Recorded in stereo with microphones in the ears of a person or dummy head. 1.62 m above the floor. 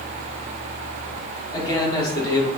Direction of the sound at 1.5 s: 25° left (ahead or behind).